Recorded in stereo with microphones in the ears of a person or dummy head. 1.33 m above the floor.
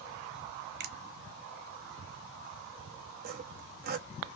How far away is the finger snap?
About 0.8 m.